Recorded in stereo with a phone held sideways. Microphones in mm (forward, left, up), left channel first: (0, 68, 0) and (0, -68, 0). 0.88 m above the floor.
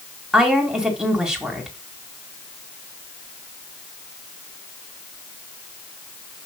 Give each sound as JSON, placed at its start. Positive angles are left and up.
{"t": 0.3, "sound": "a woman speaking", "side_deg": -5, "distance_m": 2.5}